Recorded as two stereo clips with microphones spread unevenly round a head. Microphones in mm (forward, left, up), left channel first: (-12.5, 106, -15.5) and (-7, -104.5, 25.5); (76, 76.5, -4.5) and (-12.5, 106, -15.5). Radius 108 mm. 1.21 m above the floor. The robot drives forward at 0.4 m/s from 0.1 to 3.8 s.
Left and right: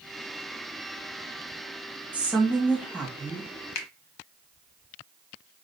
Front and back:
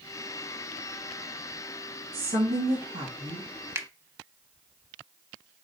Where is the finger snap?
100° left, 1.0 m.